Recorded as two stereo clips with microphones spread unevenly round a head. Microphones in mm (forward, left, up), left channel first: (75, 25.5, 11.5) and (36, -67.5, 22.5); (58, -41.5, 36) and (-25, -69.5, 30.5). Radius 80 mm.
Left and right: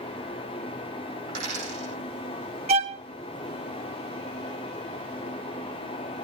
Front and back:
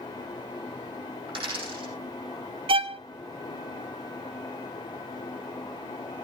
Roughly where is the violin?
Behind right.